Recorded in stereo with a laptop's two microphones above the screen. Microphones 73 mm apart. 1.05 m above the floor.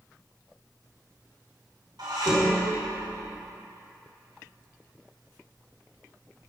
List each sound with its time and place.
2.0 s dishes clattering: 75° right (ahead or behind), 2 m